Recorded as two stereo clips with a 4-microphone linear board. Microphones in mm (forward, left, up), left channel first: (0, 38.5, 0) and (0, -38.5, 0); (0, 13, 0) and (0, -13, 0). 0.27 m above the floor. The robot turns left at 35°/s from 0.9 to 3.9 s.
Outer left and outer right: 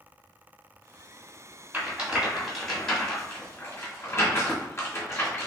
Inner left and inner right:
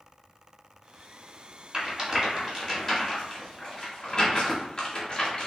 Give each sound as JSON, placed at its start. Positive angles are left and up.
{"t": 1.7, "sound": "a rattle", "side_deg": -20, "distance_m": 1.6}